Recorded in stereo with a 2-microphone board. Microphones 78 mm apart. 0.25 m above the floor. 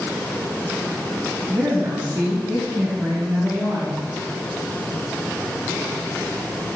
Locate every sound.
1.5 s a woman speaking: 40° right (ahead or behind), 2.5 m